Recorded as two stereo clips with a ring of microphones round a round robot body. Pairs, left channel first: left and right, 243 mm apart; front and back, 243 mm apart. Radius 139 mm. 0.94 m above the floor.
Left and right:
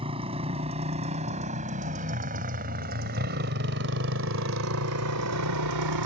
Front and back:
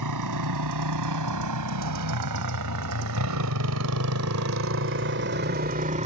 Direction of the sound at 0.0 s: 160° right.